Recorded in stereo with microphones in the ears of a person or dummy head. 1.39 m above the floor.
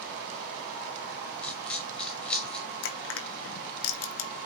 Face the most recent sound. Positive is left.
turn(degrees=80)